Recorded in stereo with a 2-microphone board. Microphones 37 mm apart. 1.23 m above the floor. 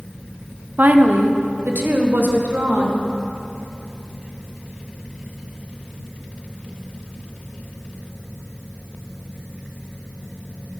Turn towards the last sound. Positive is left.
turn(degrees=-65)  # may be behind; listen again after turning